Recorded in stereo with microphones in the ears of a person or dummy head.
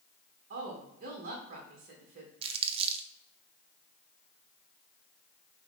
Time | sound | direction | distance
0.5 | a woman speaking | 40° right (ahead or behind) | 1.1 m
2.4 | crumpling | 40° right (ahead or behind) | 0.6 m